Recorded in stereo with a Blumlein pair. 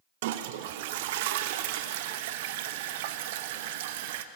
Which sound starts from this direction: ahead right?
A toilet flushing, at 0.2 s.